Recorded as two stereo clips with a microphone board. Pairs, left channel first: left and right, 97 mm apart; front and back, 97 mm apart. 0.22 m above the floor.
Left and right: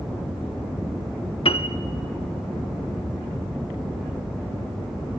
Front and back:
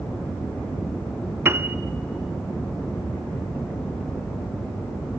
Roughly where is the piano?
Left.